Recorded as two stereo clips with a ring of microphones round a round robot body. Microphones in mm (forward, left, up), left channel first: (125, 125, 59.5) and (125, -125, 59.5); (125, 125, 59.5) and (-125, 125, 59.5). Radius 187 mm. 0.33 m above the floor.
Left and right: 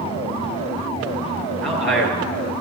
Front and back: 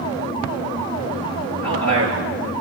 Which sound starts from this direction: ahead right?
A man speaking, at 1.6 s.